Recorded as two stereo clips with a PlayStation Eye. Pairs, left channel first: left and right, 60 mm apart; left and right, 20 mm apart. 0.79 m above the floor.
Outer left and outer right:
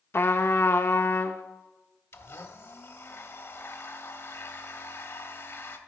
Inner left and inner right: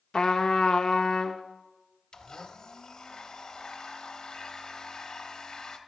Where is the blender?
50° left (ahead or behind), 0.7 m.